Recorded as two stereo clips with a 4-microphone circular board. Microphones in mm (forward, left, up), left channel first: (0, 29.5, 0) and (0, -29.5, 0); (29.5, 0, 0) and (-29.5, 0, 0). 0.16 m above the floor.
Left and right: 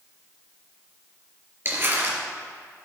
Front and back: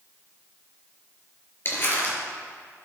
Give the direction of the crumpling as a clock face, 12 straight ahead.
1 o'clock.